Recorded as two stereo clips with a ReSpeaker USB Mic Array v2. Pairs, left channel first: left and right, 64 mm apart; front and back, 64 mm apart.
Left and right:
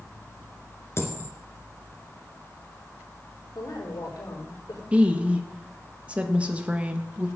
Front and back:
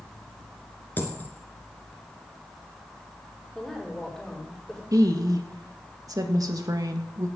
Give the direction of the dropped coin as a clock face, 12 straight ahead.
10 o'clock.